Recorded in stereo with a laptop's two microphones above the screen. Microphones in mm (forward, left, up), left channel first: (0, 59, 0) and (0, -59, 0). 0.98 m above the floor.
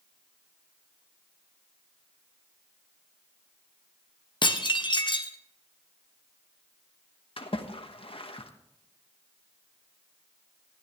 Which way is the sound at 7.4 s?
55° left (ahead or behind).